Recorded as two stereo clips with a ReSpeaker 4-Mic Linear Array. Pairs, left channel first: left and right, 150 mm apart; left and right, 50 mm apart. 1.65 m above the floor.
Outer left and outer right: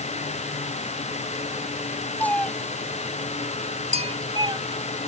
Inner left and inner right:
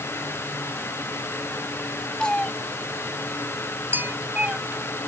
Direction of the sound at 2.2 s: 10° left (ahead or behind).